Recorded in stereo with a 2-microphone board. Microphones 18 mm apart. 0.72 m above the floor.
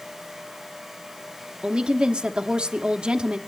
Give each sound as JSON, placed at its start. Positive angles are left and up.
{"t": 1.6, "sound": "a woman speaking", "side_deg": -65, "distance_m": 1.0}